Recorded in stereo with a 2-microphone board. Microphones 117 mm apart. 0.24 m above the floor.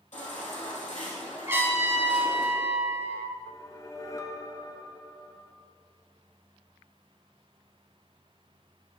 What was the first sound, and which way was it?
A baby crying, 80° left.